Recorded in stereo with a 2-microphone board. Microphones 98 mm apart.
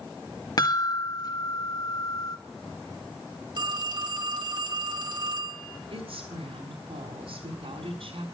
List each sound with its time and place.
0.6 s a chime: 45° left (ahead or behind), 1.7 m
3.5 s a phone ringing: 50° right (ahead or behind), 1.7 m
5.9 s a woman speaking: 80° right, 6 m